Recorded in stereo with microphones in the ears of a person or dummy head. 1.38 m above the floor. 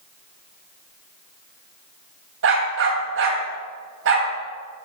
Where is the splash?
I don't hear a splash.